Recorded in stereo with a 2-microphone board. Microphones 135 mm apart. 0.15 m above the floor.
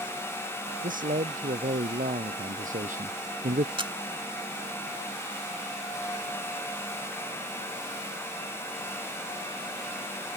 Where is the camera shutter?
40° right (ahead or behind).